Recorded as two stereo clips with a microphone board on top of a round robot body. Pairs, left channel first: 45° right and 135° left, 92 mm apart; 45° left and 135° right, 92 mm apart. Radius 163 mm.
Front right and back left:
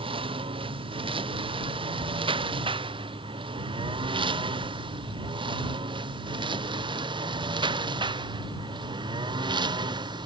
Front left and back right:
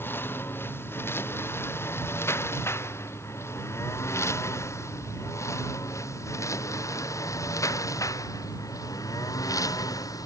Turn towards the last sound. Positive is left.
turn(degrees=95)